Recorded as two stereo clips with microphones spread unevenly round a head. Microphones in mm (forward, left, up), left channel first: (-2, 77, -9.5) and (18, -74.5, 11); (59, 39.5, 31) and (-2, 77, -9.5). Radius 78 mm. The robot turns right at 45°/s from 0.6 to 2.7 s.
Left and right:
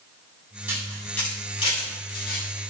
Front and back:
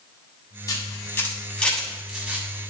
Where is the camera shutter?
5° right, 7 m; by 2.7 s 85° left, 7 m.